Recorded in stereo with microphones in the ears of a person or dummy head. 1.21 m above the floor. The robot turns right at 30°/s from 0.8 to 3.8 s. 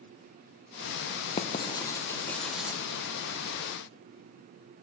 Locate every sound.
1.4 s writing: 35° left (ahead or behind), 0.8 m; by 2.8 s 5° right (ahead or behind), 0.8 m